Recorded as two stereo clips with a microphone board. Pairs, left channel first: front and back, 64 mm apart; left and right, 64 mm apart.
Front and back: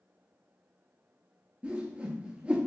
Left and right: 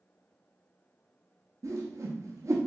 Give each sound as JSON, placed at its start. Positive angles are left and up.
{"t": 1.6, "sound": "a whoosh", "azimuth_deg": -110, "distance_m": 0.6}